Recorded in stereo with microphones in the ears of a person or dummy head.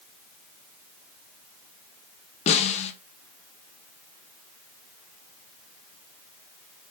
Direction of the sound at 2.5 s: 30° left (ahead or behind).